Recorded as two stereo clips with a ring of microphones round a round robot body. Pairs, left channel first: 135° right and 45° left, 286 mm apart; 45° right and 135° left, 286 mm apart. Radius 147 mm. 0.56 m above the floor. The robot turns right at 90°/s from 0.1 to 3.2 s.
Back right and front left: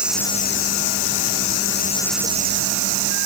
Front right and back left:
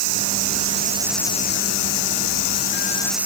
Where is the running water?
130° left; by 3.2 s 50° left.